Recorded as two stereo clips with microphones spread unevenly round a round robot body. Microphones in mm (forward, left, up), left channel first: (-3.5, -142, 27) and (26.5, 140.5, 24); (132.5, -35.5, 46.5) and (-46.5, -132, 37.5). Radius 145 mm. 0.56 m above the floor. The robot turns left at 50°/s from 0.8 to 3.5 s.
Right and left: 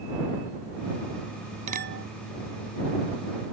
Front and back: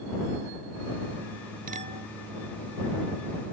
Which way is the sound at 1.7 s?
150° left.